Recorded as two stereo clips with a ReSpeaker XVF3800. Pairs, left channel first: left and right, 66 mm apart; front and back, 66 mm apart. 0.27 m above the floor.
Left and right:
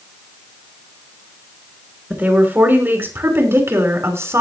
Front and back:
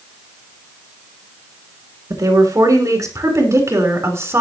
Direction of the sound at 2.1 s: 155° right.